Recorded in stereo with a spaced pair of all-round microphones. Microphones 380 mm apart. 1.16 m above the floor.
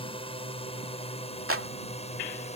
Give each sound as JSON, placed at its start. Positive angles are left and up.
{"t": 0.0, "sound": "a drone", "side_deg": 15}
{"t": 1.5, "sound": "a clap", "side_deg": -35}